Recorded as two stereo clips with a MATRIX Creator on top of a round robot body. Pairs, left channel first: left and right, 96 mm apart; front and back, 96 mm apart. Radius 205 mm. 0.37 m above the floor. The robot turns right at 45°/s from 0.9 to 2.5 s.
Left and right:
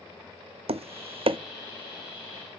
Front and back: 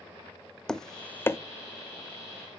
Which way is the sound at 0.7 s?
85° right.